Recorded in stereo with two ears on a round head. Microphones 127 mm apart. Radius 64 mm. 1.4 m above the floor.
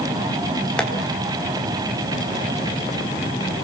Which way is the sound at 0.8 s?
5° left (ahead or behind).